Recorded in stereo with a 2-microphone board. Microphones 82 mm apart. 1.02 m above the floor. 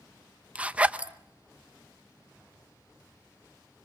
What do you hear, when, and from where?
0.6 s a zipper: 15° right (ahead or behind), 0.8 m